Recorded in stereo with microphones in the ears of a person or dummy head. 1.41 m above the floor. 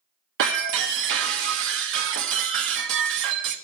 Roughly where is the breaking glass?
Right.